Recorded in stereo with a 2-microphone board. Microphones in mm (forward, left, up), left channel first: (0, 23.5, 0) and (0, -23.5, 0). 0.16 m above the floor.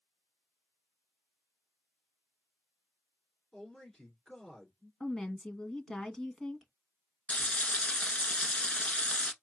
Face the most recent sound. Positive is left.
turn(degrees=25)  # may be behind; listen again after turning